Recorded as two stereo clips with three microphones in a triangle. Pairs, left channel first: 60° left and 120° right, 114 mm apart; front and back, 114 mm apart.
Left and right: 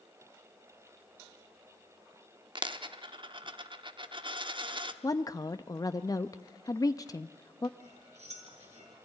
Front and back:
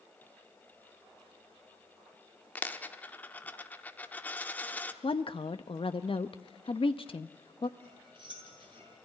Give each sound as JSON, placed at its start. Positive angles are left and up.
{"t": 2.5, "sound": "a dropped coin", "azimuth_deg": -75, "distance_m": 0.9}
{"t": 5.0, "sound": "a woman speaking", "azimuth_deg": 10, "distance_m": 0.5}
{"t": 7.8, "sound": "cutlery clinking", "azimuth_deg": -135, "distance_m": 6.0}